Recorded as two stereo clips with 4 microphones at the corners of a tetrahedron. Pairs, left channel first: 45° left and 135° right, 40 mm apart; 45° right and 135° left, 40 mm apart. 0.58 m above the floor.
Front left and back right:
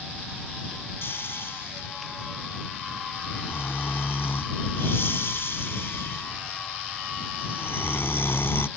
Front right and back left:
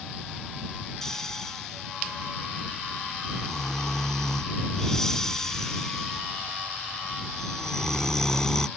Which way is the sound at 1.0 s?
30° left.